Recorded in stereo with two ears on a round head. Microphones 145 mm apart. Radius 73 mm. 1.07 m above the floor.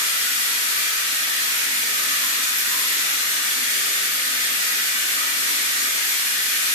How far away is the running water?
About 1.4 m.